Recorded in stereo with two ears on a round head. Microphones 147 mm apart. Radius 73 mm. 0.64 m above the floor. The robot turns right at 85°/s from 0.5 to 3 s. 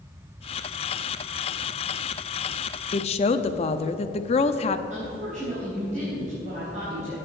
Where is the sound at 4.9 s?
45° right (ahead or behind), 4 m.